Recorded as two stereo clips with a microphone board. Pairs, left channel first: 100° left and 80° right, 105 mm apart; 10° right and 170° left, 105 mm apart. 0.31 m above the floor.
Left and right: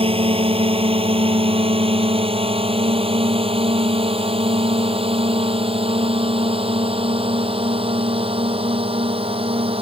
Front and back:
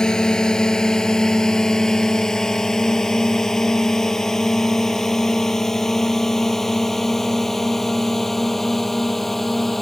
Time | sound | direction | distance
0.0 | a drone | 95° right | ?